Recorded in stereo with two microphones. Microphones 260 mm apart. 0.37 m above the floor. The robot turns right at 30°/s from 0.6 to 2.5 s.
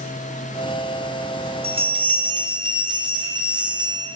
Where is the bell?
20° right (ahead or behind), 0.5 m; by 4.1 s 15° right (ahead or behind), 0.5 m.